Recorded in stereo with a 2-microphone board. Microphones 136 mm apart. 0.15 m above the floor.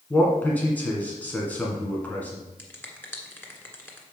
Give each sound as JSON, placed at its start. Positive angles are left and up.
{"t": 0.1, "sound": "a man speaking", "side_deg": 10, "distance_m": 1.9}
{"t": 2.6, "sound": "a finger snap", "side_deg": 15, "distance_m": 1.6}